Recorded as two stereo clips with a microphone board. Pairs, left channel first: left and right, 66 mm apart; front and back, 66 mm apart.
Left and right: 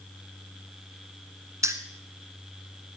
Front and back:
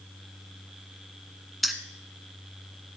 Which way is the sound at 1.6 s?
90° right.